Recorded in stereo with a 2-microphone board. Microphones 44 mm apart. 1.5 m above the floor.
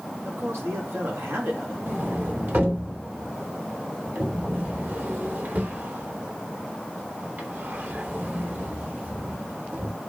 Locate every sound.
0.2 s a man speaking: 85° right, 6 m
1.9 s a sliding door: 55° right (ahead or behind), 3.5 m